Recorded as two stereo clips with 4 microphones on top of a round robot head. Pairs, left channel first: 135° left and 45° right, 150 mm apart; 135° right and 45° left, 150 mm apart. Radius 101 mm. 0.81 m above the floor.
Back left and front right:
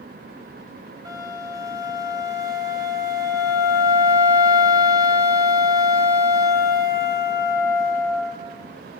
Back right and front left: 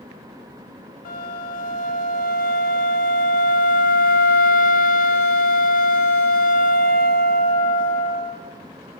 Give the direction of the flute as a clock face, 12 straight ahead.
4 o'clock.